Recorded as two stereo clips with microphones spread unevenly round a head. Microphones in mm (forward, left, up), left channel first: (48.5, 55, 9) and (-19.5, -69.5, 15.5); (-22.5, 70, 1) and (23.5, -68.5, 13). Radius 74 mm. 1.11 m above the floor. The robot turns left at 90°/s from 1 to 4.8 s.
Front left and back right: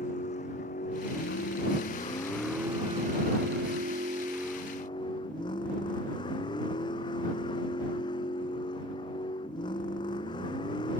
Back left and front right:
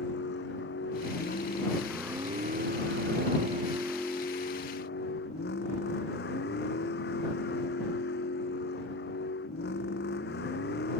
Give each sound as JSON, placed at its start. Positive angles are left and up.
{"t": 0.0, "sound": "a vehicle", "azimuth_deg": 105}